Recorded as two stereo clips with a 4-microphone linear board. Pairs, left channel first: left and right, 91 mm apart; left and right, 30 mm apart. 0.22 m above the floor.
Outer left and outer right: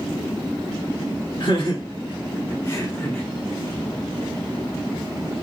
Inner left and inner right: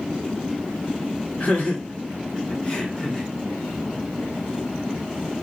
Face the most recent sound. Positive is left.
turn(degrees=20)  # may be behind; listen again after turning